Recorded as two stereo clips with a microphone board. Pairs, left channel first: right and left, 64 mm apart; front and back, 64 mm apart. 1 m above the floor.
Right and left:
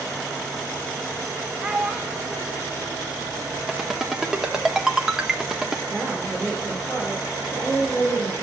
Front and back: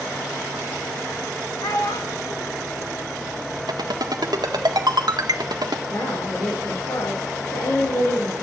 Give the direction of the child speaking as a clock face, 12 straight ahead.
12 o'clock.